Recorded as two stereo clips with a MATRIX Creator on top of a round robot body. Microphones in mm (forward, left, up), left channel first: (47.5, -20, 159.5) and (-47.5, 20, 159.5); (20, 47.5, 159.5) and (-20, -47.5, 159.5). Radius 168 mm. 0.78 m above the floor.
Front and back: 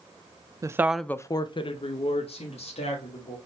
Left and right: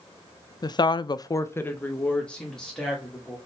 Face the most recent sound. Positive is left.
turn(degrees=-20)